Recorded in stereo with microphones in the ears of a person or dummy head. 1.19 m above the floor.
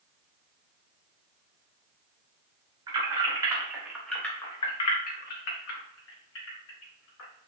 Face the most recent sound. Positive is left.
turn(degrees=75)  # may be behind; listen again after turning